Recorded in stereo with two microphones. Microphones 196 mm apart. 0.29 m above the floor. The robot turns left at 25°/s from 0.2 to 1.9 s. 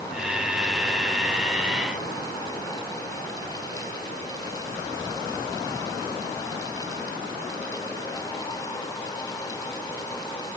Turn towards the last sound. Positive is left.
No sound to turn to.